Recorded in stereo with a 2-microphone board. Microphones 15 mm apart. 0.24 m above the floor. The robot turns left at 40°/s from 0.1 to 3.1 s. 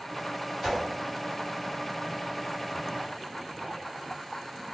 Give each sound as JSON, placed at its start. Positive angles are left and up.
{"t": 0.6, "sound": "a whoosh", "side_deg": 5, "distance_m": 2.0}